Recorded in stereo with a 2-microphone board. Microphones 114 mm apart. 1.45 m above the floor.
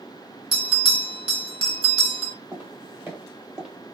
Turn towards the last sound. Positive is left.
turn(degrees=-5)  # may be behind; listen again after turning